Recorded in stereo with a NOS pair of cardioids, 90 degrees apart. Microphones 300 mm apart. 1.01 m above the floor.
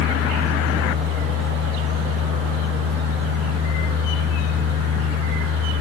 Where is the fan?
50° right, 2 m.